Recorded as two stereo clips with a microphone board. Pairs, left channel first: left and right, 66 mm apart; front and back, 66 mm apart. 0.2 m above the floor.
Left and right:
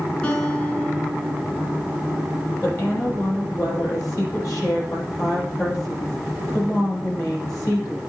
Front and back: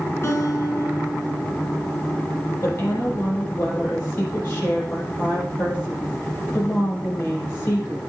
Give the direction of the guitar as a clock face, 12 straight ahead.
11 o'clock.